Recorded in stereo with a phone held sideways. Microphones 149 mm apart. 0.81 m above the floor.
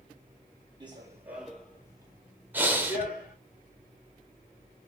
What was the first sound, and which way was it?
Running footsteps, 30° right (ahead or behind).